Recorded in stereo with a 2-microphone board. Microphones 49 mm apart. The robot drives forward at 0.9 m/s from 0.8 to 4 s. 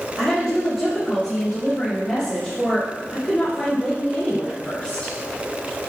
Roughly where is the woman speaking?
Centre.